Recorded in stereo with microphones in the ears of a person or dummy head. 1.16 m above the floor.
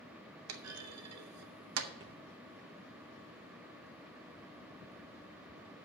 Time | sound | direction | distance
0.5 | a clunk | 75° right (ahead or behind) | 0.7 m
2.0 | a thud | 25° right (ahead or behind) | 0.9 m